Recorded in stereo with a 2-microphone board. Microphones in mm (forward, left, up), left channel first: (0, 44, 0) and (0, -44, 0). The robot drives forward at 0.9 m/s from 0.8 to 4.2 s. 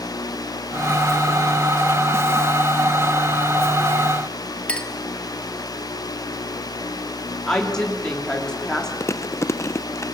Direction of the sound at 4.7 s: 15° left (ahead or behind).